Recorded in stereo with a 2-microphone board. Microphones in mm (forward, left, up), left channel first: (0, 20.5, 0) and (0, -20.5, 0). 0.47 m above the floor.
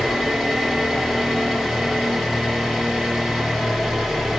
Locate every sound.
0.0 s an engine running: 10° left (ahead or behind), 2 m